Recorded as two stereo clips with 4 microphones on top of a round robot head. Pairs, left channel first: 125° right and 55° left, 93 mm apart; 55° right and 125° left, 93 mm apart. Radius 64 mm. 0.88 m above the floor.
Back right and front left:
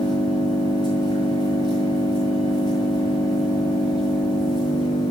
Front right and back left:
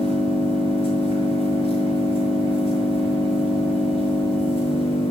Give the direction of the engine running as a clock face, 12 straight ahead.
3 o'clock.